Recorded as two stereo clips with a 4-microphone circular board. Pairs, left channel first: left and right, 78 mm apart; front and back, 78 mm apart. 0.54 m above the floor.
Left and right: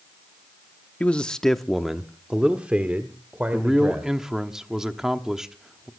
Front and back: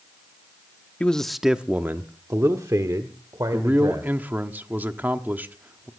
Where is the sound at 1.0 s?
45° left, 0.8 m; by 4.1 s 155° right, 2.0 m.